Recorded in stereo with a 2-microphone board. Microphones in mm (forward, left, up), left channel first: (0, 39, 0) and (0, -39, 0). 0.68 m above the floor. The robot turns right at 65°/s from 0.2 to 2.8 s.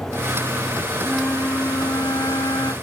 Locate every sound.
1.0 s a flute: straight ahead, 0.6 m; by 2.7 s 115° left, 0.6 m